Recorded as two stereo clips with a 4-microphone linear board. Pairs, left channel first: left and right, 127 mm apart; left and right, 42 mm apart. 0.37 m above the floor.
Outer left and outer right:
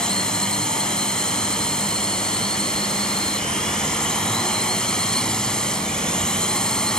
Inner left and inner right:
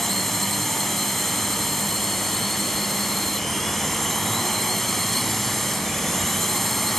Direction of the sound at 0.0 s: 5° left (ahead or behind).